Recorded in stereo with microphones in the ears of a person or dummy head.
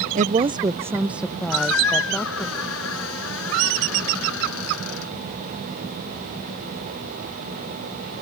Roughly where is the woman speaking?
Right.